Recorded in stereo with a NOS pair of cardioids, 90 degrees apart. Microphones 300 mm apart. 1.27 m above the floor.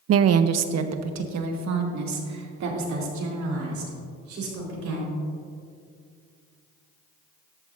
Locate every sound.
0.1 s a woman speaking: 50° right, 0.5 m; by 5.1 s 70° right, 4 m